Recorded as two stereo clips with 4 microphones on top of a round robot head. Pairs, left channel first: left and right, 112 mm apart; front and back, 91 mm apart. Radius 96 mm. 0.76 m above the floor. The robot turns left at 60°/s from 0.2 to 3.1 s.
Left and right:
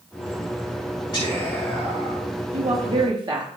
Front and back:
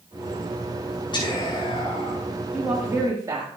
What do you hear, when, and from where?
1.1 s whispering: 35° left, 4.5 m; by 2.3 s 35° right, 4.5 m
2.5 s a woman speaking: 95° right, 1.5 m; by 3.5 s 130° right, 1.5 m